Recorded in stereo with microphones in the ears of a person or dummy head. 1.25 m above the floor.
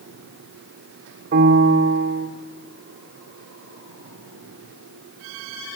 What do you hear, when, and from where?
1.3 s a piano: 50° right (ahead or behind), 1.7 m